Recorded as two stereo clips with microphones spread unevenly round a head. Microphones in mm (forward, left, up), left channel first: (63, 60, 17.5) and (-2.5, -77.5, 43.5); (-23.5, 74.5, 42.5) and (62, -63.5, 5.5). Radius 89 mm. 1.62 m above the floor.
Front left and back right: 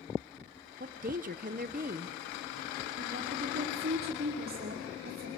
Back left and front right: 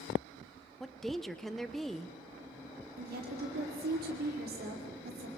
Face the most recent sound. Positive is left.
turn(degrees=-95)